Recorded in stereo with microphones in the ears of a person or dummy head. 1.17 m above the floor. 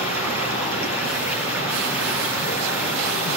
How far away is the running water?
About 5.5 m.